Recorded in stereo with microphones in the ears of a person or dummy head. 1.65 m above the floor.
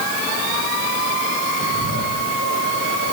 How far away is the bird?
About 5.5 m.